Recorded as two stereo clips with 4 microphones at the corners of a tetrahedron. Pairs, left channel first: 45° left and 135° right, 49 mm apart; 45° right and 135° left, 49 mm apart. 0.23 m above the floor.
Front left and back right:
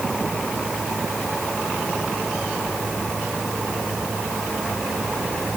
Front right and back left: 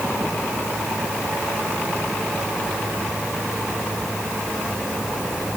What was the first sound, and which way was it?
Only background noise.